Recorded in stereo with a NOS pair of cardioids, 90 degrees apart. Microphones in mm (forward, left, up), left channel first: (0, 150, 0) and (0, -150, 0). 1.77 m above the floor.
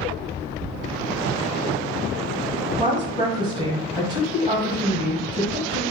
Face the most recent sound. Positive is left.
turn(degrees=-10)